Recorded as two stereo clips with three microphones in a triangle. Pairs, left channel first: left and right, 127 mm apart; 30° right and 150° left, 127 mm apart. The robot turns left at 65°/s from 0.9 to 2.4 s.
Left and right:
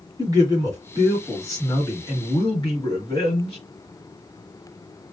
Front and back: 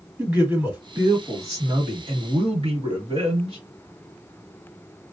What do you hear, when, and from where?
0.2 s a man speaking: 135° right, 1.4 m; by 3.6 s 125° left, 1.4 m